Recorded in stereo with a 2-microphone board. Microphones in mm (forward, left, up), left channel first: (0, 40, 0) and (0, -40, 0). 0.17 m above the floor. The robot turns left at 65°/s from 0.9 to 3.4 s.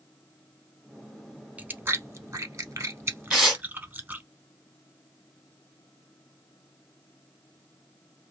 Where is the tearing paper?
Centre (ahead or behind), 1.6 m; by 3.6 s 5° left (ahead or behind), 1.6 m.